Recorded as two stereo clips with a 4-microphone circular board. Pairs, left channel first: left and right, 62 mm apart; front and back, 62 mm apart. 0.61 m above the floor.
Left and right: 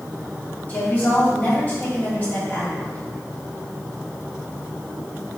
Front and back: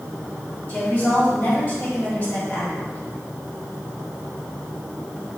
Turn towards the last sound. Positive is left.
turn(degrees=40)